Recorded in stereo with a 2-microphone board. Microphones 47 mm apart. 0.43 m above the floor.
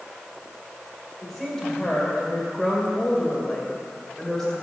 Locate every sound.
1.2 s a woman speaking: 10° left (ahead or behind), 2 m